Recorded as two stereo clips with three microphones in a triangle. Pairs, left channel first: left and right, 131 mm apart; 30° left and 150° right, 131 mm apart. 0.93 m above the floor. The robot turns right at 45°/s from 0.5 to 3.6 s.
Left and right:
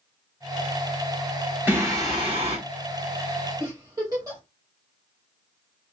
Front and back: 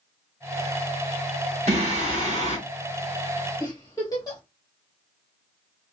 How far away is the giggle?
About 1.5 m.